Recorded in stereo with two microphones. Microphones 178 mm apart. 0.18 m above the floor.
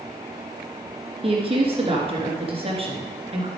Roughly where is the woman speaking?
Right.